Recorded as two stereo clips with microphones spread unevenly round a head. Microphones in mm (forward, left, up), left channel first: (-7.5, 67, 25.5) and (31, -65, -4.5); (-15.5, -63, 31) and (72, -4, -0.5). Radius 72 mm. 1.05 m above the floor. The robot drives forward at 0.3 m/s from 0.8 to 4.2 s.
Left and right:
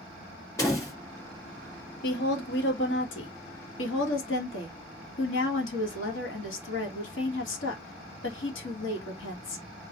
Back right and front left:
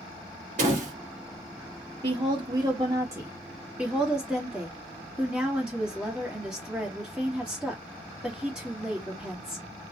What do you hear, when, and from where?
0.6 s a door slam: 35° left, 1.9 m; by 0.9 s 40° left, 1.8 m
2.0 s a woman speaking: 85° left, 1.3 m; by 9.7 s 115° left, 1.4 m